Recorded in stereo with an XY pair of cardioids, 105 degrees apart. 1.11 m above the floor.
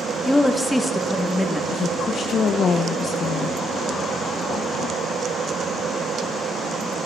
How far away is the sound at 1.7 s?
About 0.6 m.